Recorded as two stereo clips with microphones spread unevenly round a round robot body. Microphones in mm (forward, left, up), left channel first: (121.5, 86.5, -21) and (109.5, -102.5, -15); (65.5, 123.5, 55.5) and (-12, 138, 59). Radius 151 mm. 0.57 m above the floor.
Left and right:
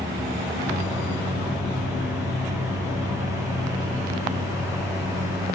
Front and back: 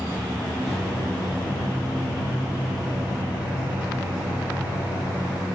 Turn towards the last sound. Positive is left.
turn(degrees=-25)